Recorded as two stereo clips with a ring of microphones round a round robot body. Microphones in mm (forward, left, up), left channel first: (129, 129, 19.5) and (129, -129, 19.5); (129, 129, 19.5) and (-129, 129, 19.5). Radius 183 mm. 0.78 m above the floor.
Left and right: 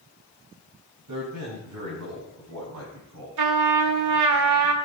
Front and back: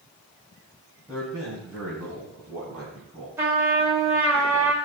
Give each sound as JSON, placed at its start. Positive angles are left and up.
{"t": 1.1, "sound": "a man speaking", "azimuth_deg": -90, "distance_m": 4.0}
{"t": 3.4, "sound": "a trumpet", "azimuth_deg": -95, "distance_m": 1.2}